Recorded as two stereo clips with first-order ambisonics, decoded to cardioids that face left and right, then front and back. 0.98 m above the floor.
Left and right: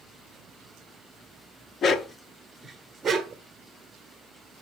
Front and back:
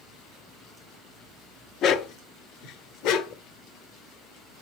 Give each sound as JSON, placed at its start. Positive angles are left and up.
{"t": 1.8, "sound": "a dog barking", "azimuth_deg": 40, "distance_m": 0.6}